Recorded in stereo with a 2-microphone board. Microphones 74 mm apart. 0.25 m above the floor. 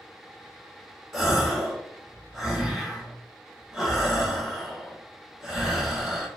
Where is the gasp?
5° right (ahead or behind), 0.8 m.